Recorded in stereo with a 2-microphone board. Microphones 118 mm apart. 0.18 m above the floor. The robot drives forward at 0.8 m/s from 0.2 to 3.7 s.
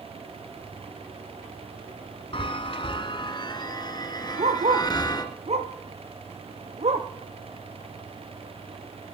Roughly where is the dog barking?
Right.